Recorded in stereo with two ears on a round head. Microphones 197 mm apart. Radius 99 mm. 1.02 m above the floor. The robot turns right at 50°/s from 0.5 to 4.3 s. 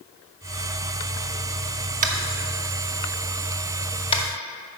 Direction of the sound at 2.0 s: 35° right (ahead or behind).